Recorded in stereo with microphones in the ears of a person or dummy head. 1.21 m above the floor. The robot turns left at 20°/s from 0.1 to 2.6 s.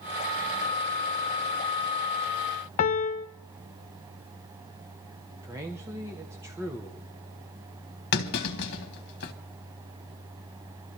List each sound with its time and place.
2.8 s a piano: 40° left (ahead or behind), 0.7 m
5.4 s a man speaking: 15° right (ahead or behind), 1.1 m
8.1 s a clunk: 55° left (ahead or behind), 1.6 m